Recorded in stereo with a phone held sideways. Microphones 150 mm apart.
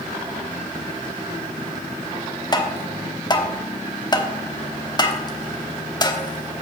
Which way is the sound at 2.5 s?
30° left (ahead or behind).